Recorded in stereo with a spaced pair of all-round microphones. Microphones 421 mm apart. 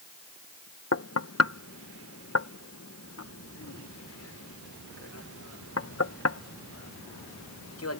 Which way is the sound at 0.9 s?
35° left (ahead or behind).